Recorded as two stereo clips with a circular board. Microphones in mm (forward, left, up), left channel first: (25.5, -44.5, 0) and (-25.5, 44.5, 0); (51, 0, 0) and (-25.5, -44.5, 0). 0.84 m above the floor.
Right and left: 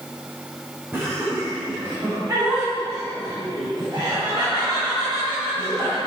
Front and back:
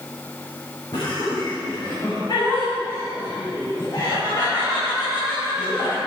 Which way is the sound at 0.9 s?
55° left.